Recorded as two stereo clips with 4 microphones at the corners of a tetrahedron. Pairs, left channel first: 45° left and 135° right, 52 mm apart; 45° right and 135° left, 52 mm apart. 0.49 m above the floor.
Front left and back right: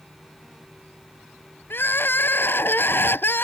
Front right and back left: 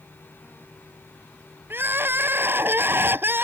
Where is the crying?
90° left.